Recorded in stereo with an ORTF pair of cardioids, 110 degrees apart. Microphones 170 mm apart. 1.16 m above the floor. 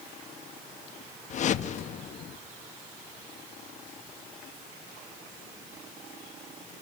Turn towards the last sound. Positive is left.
turn(degrees=50)